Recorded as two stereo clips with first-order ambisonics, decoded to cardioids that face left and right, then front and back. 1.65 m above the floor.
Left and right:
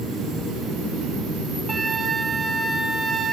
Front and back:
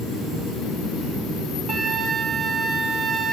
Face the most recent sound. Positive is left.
turn(degrees=-145)